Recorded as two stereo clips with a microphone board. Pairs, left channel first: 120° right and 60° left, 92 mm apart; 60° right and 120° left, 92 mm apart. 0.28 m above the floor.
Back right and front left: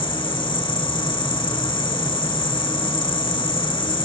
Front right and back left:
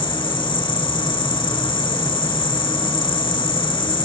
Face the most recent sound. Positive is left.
turn(degrees=-90)